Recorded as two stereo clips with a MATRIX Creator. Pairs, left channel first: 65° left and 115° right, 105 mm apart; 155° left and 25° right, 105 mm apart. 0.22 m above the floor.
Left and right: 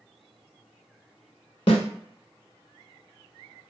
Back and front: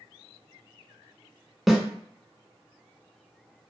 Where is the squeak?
No squeak in this recording.